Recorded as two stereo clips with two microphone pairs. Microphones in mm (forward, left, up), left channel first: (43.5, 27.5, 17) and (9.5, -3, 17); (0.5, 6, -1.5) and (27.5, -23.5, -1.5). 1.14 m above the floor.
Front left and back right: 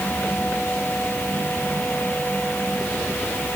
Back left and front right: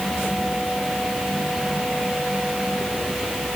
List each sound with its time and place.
Only background noise.